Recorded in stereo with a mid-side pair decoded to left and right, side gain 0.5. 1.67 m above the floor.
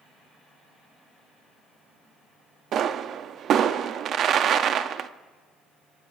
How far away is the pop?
About 0.7 m.